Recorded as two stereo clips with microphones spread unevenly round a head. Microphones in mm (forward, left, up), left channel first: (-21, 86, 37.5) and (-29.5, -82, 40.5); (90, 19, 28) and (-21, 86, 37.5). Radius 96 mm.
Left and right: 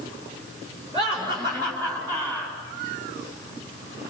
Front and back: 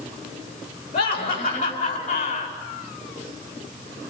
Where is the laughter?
30° right, 8 m; by 2.5 s 15° right, 8 m.